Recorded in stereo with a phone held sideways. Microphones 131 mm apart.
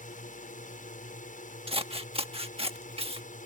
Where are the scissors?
45° right (ahead or behind).